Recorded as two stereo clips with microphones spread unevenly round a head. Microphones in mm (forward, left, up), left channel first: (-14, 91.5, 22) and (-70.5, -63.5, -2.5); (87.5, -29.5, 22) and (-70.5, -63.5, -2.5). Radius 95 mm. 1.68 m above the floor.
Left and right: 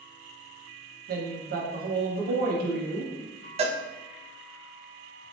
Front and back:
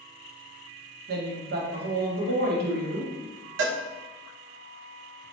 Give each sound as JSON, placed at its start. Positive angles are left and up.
{"t": 1.1, "sound": "a woman speaking", "azimuth_deg": -145, "distance_m": 1.0}
{"t": 3.6, "sound": "a cowbell", "azimuth_deg": -165, "distance_m": 0.6}